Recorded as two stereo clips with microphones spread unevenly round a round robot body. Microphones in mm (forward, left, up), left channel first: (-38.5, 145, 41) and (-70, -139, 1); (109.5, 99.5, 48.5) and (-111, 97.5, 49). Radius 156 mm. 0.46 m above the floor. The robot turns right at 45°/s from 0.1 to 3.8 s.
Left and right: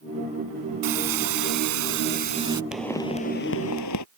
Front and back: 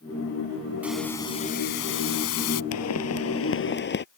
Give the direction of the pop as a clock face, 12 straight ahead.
12 o'clock.